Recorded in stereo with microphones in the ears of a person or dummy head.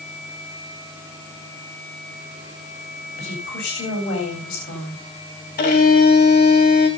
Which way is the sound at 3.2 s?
65° left (ahead or behind).